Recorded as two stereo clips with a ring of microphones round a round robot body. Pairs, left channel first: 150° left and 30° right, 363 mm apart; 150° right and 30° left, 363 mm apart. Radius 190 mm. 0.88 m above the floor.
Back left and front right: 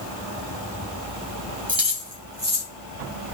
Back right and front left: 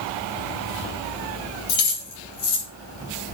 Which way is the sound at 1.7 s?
110° right.